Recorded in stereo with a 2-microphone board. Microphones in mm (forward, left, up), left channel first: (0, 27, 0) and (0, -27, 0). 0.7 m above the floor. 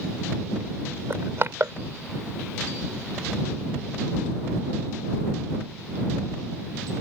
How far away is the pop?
No pop in this recording.